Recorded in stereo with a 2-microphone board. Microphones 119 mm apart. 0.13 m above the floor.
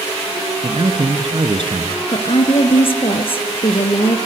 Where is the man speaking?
45° right (ahead or behind), 2.0 m.